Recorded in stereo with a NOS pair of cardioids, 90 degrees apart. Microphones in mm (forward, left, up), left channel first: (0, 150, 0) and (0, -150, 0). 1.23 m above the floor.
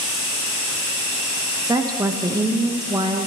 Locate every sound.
1.6 s a woman speaking: 10° right, 1.0 m